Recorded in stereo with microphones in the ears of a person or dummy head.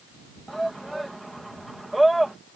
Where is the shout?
Centre (ahead or behind).